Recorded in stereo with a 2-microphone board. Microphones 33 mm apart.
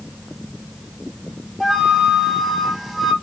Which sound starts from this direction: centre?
A flute, at 1.6 s.